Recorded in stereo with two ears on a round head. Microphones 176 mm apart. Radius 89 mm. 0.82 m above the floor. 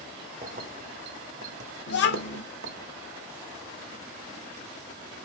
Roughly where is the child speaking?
Left.